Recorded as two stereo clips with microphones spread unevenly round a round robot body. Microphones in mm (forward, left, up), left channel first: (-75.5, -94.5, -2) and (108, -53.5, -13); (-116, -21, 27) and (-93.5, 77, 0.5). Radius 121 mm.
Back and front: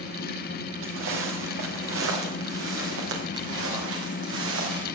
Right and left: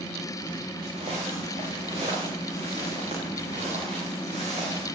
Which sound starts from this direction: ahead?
Footsteps, at 0.8 s.